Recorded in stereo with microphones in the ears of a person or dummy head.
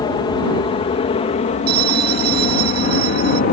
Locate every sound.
0.0 s an aircraft: 25° left (ahead or behind); by 3.5 s 45° left (ahead or behind)
1.7 s a bell: 55° right (ahead or behind)